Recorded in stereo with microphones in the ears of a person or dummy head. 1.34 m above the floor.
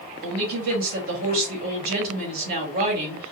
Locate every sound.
0.2 s a woman speaking: 55° right (ahead or behind), 2 m